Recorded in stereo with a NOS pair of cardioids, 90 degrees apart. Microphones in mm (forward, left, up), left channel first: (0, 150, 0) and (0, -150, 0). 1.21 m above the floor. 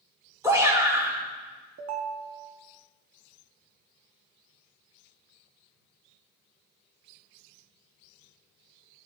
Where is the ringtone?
55° right, 1.5 m.